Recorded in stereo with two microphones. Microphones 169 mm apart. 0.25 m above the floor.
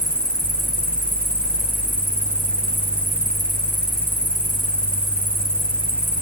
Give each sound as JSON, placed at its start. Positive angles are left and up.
{"t": 0.0, "sound": "an insect", "side_deg": -65, "distance_m": 2.0}